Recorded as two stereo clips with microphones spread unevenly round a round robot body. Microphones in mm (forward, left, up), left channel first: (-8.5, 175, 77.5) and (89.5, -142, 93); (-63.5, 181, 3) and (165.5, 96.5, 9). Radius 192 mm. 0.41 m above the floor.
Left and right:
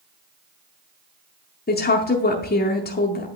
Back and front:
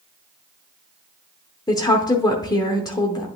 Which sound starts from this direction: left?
A woman speaking, at 1.7 s.